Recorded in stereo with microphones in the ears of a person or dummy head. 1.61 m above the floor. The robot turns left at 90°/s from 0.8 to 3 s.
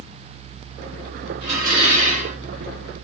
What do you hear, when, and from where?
1.4 s dishes clattering: 35° right, 2.5 m; by 2.4 s 125° right, 2.5 m